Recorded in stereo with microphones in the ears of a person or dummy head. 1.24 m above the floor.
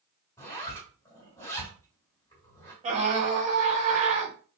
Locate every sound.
0.4 s a zipper: 15° left (ahead or behind), 2 m
2.8 s a scream: 35° right (ahead or behind), 2 m